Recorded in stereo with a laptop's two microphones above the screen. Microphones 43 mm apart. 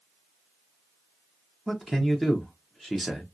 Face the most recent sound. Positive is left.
turn(degrees=-5)  # may be behind; listen again after turning